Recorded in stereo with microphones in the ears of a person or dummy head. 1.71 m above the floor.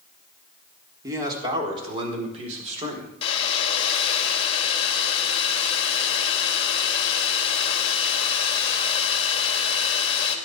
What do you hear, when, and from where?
1.0 s a man speaking: 20° right (ahead or behind), 4 m; by 3.1 s 45° right (ahead or behind), 5.5 m
3.2 s a hair dryer: 30° left (ahead or behind), 2.5 m